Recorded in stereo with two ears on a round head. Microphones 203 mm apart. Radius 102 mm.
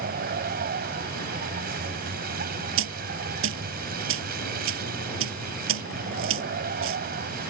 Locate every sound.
0.0 s a vehicle: 40° right (ahead or behind)
2.8 s a dropped coin: 60° right (ahead or behind)